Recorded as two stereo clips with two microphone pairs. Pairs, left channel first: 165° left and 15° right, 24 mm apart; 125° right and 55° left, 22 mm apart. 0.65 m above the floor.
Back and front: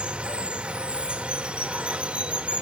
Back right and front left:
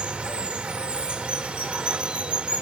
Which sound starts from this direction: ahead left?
Running water, at 0.0 s.